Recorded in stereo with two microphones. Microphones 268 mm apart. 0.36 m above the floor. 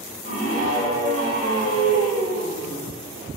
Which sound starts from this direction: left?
A scream, at 0.2 s.